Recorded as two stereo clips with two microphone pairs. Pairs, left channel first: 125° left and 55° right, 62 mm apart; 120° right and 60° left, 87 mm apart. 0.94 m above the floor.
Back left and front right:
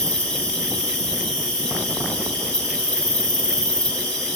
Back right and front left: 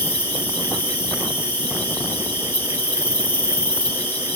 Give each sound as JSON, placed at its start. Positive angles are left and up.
{"t": 0.0, "sound": "an insect", "azimuth_deg": -170, "distance_m": 1.2}